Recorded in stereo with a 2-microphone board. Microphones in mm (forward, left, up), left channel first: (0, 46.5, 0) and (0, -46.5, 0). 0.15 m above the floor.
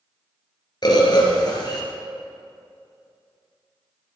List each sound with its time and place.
0.8 s a bird: 50° left (ahead or behind), 1.7 m